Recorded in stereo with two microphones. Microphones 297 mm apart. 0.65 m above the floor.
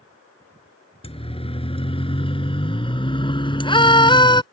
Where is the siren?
20° left (ahead or behind); by 4.4 s 15° left (ahead or behind).